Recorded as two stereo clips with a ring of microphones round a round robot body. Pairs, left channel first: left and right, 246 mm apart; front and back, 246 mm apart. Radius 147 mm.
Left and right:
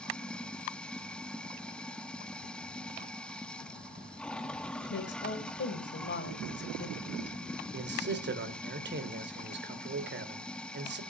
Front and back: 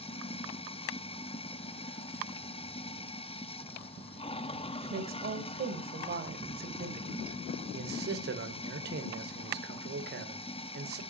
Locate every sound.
0.0 s running water: 10° left, 0.8 m
4.8 s a woman speaking: 130° left, 3 m
7.7 s a man speaking: 130° right, 2 m